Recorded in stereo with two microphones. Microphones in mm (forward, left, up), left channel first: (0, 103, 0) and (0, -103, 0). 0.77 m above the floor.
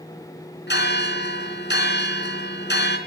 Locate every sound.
0.7 s a bell: 60° left (ahead or behind), 3.5 m